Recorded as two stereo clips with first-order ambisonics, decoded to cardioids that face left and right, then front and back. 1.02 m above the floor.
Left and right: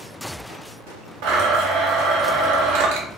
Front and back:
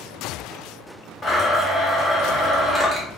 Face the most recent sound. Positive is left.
turn(degrees=-80)